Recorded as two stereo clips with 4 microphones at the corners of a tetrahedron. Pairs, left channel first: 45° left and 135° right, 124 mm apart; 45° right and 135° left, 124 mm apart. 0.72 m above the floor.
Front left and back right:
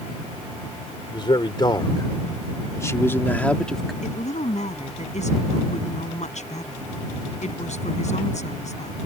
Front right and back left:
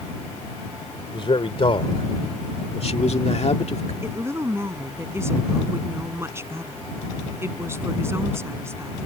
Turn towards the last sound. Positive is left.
turn(degrees=65)